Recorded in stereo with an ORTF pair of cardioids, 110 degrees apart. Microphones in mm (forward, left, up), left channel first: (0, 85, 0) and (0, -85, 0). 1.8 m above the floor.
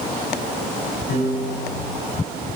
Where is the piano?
70° left, 9 m.